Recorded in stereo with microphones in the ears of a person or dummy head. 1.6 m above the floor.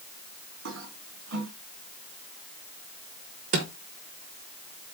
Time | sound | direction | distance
0.7 | a toilet flushing | 60° right (ahead or behind) | 2.5 m
3.5 | a drawer | 30° right (ahead or behind) | 0.9 m